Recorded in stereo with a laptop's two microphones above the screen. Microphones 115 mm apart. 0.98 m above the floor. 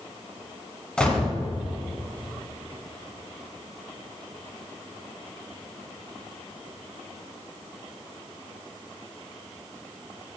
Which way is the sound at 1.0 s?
10° left (ahead or behind).